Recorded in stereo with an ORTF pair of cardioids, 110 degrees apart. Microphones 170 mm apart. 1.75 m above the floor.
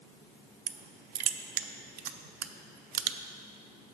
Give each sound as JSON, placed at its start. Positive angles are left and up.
{"t": 0.7, "sound": "crushing", "azimuth_deg": -70, "distance_m": 0.5}